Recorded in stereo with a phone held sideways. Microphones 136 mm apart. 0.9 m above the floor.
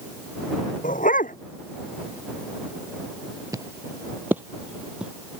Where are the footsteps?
25° right (ahead or behind); by 5.1 s 10° right (ahead or behind).